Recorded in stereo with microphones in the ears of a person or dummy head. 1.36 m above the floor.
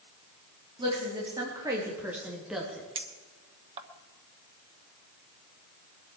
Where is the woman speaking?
25° right (ahead or behind), 3.5 m; by 2.9 s centre (ahead or behind), 2.5 m.